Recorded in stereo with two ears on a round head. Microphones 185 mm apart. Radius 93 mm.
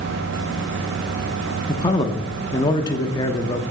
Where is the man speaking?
20° left (ahead or behind), 0.7 m.